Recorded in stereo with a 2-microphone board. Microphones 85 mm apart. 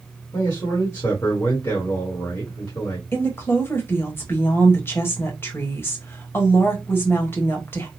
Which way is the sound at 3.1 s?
25° left (ahead or behind).